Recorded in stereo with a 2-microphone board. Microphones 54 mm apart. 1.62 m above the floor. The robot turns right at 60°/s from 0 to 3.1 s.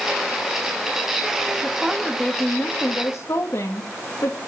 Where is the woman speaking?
20° right, 2 m; by 4.4 s 65° left, 2 m.